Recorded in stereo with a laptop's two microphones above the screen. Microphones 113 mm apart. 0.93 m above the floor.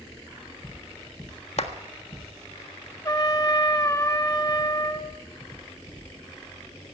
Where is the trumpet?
30° left (ahead or behind), 0.8 m.